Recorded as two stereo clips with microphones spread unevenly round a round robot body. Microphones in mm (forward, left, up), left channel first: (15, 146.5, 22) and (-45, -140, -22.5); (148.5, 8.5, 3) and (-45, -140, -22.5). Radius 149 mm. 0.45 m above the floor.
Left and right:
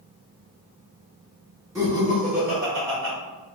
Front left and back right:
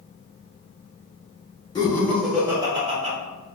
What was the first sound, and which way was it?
Laughter, 35° right.